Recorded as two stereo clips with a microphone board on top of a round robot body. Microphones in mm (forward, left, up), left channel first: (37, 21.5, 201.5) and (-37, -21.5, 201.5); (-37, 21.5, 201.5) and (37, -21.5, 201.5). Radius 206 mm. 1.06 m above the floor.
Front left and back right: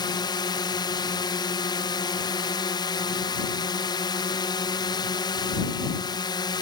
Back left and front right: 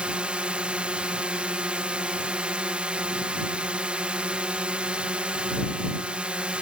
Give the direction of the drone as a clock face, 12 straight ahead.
10 o'clock.